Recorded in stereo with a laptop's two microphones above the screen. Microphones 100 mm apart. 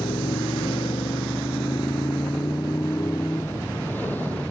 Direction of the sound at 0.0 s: 85° left.